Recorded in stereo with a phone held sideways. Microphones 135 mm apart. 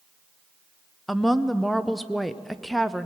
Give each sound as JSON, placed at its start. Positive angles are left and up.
{"t": 1.1, "sound": "a woman speaking", "side_deg": 0, "distance_m": 0.6}